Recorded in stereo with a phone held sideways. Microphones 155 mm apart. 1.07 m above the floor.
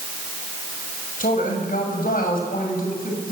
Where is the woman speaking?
65° left (ahead or behind), 6.5 m; by 3.3 s 70° left (ahead or behind), 7 m.